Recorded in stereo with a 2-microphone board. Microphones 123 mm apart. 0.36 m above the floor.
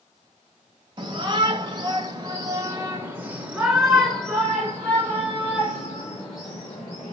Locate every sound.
1.0 s a shout: 40° right (ahead or behind), 1.9 m; by 7.1 s 30° left (ahead or behind), 2.5 m